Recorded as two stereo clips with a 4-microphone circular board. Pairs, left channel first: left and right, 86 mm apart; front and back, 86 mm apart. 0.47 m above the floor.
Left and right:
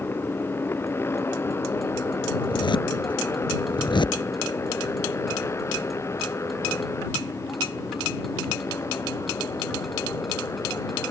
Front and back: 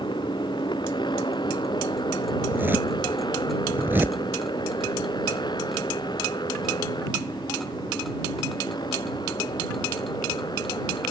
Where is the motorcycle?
25° left; by 11.1 s 35° left.